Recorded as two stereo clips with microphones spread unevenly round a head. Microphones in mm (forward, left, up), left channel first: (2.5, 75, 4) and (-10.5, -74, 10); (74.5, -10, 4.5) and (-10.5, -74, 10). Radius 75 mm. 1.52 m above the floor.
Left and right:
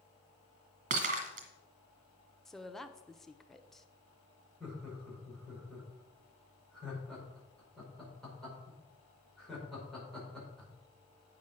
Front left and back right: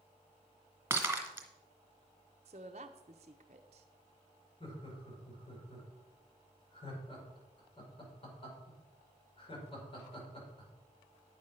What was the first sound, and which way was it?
Breaking glass, 80° right.